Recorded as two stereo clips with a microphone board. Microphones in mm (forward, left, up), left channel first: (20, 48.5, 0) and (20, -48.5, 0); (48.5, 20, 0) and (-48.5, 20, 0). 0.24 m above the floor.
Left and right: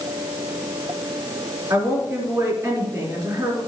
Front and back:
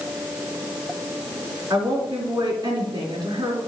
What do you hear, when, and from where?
1.7 s a woman speaking: 135° right, 3 m